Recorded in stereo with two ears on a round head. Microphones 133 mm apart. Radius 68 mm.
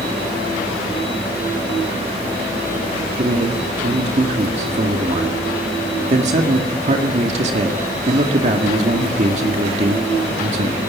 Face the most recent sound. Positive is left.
turn(degrees=-50)  # may be behind; listen again after turning